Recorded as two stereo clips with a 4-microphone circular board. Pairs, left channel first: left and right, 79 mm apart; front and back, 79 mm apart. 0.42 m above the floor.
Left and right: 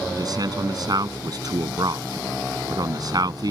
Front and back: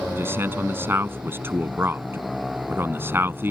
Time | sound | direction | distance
0.1 | a man speaking | 120° right | ?